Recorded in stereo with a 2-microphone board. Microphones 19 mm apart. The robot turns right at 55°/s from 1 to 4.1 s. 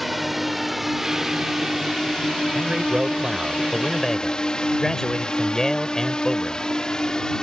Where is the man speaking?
65° right; by 6.7 s 20° left.